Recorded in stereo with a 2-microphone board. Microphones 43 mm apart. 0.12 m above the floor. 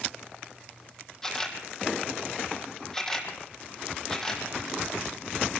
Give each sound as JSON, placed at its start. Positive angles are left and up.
{"t": 1.2, "sound": "a camera shutter", "side_deg": 10, "distance_m": 3.0}